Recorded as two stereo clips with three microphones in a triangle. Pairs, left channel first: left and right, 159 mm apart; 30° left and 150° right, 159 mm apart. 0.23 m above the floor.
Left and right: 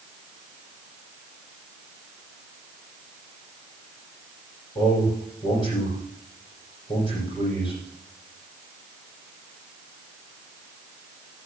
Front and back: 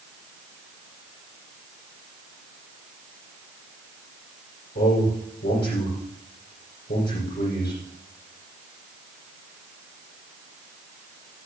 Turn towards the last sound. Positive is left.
turn(degrees=30)